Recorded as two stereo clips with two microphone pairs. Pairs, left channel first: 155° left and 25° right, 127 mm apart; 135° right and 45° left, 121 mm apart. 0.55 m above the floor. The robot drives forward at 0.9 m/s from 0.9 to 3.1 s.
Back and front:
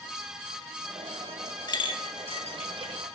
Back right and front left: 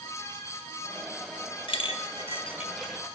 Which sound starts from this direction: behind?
A clink, at 1.7 s.